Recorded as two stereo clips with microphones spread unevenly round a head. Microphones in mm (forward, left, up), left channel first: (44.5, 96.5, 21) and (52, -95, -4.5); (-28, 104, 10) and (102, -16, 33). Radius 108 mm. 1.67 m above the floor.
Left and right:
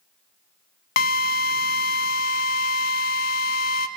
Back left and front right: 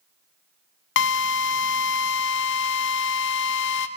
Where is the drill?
130° left, 0.6 m.